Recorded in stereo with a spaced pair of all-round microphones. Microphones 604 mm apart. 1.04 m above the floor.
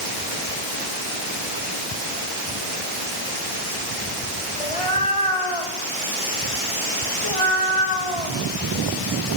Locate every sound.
4.6 s a cat meowing: 55° left (ahead or behind), 3 m